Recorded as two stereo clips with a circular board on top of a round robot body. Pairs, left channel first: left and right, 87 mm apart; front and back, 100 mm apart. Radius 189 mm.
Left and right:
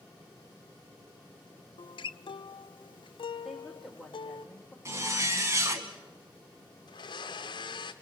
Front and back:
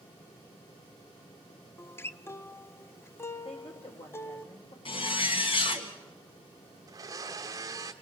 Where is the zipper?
35° right, 1.7 m.